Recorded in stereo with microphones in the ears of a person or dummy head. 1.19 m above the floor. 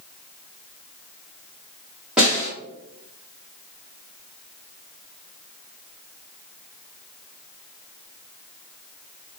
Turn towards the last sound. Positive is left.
turn(degrees=-5)  # may be behind; listen again after turning